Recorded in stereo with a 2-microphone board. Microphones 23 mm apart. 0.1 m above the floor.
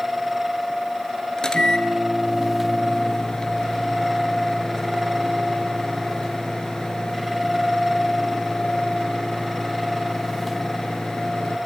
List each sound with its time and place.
1.4 s a microwave: 30° left (ahead or behind), 1.6 m